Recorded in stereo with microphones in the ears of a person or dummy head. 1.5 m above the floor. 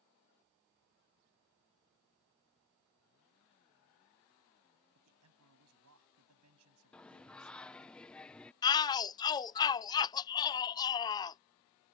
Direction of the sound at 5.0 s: 85° right.